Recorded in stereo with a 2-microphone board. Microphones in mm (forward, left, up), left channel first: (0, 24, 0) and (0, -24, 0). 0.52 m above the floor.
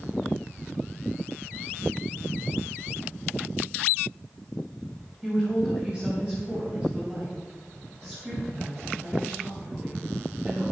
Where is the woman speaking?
15° right (ahead or behind), 3.5 m; by 10.6 s 40° right (ahead or behind), 8 m.